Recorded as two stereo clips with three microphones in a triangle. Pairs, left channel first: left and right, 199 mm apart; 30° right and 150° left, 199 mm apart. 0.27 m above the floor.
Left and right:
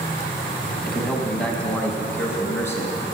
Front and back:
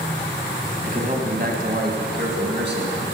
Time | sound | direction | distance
0.9 | a man speaking | 175° left | 1.6 m